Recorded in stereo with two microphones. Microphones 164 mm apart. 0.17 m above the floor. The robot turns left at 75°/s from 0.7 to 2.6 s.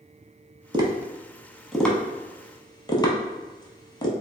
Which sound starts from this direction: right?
Tapping, at 0.7 s.